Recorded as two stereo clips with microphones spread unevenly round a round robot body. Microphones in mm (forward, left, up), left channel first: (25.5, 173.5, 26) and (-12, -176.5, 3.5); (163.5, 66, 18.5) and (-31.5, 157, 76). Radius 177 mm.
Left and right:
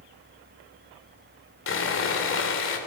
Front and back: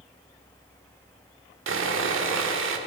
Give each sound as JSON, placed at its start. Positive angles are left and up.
{"t": 1.7, "sound": "sawing", "azimuth_deg": 140, "distance_m": 2.5}